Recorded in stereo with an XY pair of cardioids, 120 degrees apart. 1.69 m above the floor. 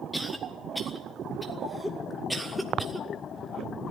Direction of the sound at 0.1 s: Straight ahead.